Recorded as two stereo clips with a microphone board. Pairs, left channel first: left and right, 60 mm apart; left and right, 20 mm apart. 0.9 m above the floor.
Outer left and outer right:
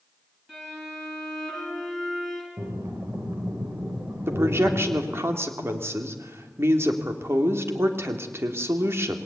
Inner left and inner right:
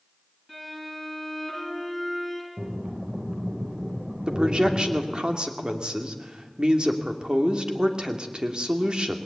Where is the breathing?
45° right (ahead or behind), 4 m.